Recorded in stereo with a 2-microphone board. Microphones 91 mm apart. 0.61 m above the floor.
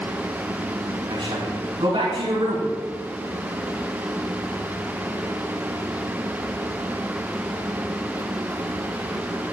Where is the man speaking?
75° right (ahead or behind), 5 m.